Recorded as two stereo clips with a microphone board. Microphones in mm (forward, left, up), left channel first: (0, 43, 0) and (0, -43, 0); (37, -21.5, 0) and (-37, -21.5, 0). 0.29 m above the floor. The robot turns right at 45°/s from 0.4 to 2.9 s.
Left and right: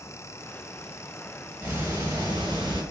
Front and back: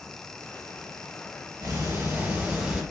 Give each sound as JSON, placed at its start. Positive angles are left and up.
{"t": 1.6, "sound": "ticking", "azimuth_deg": -150, "distance_m": 1.0}